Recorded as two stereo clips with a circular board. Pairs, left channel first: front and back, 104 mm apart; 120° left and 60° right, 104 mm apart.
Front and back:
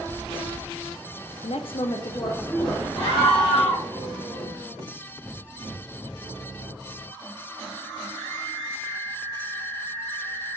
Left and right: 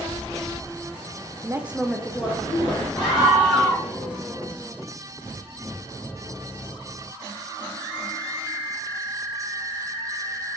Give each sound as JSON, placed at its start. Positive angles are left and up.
{"t": 1.4, "sound": "a woman speaking", "azimuth_deg": -5, "distance_m": 0.5}
{"t": 3.0, "sound": "a scream", "azimuth_deg": 30, "distance_m": 1.7}